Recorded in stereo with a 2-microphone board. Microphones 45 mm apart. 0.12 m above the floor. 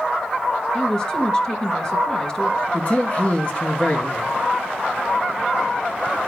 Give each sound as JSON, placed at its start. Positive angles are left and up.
{"t": 0.7, "sound": "a woman speaking", "side_deg": 20, "distance_m": 1.9}
{"t": 2.7, "sound": "a man speaking", "side_deg": 30, "distance_m": 2.0}